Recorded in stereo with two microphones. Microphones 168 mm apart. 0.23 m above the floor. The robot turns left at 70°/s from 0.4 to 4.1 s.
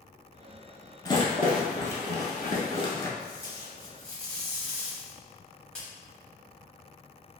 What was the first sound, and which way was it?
A rattle, 20° left (ahead or behind).